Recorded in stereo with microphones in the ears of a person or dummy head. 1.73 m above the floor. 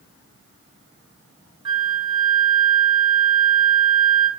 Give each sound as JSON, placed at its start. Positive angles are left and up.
{"t": 1.6, "sound": "a flute", "side_deg": -25, "distance_m": 0.9}